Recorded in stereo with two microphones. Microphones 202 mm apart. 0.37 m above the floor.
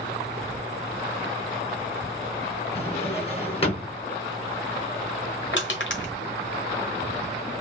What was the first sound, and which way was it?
A drawer, 30° left (ahead or behind).